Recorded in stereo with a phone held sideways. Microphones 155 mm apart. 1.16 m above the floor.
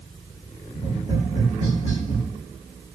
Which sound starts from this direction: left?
Tapping, at 0.7 s.